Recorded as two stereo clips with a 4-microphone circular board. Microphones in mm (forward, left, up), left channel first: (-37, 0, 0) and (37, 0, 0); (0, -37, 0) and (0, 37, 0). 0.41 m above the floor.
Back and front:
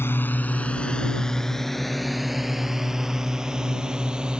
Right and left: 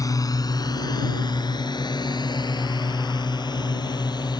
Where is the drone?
125° right; by 4.4 s 80° right.